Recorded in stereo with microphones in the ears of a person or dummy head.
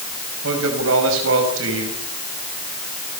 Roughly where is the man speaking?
Right.